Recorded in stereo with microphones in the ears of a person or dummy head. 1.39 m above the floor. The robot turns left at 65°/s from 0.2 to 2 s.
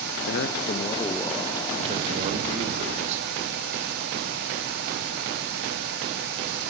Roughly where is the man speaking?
Left.